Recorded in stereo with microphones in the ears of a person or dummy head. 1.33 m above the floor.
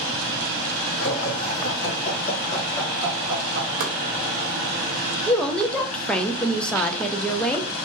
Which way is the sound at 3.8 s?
60° right (ahead or behind).